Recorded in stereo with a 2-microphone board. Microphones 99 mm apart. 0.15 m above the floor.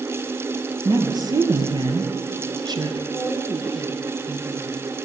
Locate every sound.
0.8 s a woman speaking: 45° right (ahead or behind), 3.5 m
3.1 s a woman speaking: 25° right (ahead or behind), 4 m